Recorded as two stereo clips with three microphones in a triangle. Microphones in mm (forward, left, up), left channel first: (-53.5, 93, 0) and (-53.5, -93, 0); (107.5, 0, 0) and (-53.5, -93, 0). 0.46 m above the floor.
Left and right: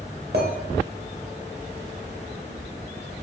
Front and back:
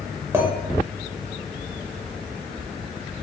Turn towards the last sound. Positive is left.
turn(degrees=-75)